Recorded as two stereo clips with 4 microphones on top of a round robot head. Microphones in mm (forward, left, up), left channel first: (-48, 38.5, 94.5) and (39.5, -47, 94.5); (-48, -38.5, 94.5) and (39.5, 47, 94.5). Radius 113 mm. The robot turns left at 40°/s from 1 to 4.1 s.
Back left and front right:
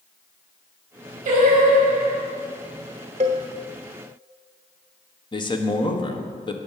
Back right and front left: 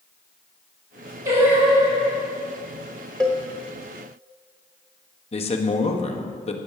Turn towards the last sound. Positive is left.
turn(degrees=-170)